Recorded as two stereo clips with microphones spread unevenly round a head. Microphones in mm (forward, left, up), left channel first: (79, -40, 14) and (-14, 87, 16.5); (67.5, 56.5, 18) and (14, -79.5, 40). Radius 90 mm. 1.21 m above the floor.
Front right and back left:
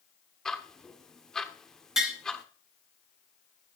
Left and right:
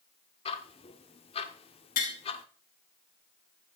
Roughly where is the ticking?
Ahead left.